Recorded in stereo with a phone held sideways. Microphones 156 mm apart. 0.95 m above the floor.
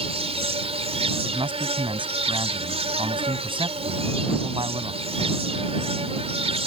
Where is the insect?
40° right (ahead or behind).